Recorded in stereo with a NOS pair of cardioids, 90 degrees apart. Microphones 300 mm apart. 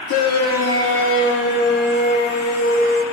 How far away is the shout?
About 2 m.